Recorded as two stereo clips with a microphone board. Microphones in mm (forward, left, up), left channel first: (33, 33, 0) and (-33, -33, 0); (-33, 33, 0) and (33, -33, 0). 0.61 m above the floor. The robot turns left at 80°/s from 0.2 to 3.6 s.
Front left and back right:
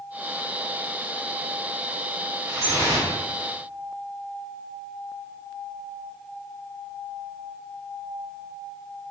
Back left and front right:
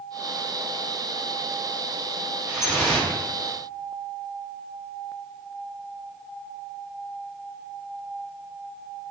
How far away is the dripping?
About 0.9 m.